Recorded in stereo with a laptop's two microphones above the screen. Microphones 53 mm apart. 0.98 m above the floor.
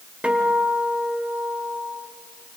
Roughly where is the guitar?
Right.